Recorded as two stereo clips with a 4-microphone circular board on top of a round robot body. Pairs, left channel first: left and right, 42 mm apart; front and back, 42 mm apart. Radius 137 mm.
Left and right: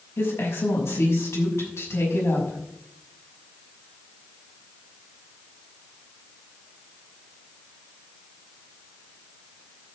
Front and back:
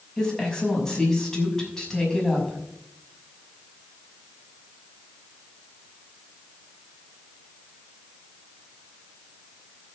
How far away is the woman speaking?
About 6 m.